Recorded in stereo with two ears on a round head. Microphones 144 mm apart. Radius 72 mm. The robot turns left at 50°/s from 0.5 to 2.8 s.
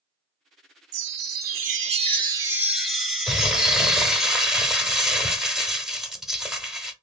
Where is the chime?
85° right, 0.7 m; by 4.3 s straight behind, 0.7 m.